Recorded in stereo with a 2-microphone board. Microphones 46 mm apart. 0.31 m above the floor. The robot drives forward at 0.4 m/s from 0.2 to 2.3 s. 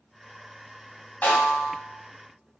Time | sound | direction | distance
1.2 | a snare drum | 35° left (ahead or behind) | 1.1 m